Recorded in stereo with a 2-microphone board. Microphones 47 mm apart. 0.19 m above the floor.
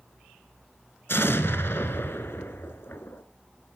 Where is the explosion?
60° left (ahead or behind), 0.9 m.